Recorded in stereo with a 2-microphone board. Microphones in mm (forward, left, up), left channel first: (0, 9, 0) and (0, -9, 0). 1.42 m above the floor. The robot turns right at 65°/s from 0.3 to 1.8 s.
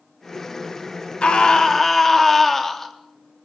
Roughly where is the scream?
Behind left.